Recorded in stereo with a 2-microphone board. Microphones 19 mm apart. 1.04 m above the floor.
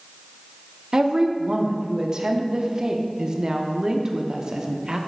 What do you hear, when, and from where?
0.9 s a woman speaking: 40° right (ahead or behind), 0.6 m